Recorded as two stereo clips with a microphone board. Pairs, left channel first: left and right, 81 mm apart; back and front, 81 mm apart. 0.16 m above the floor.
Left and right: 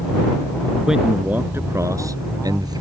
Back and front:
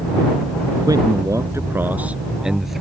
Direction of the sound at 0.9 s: 5° right.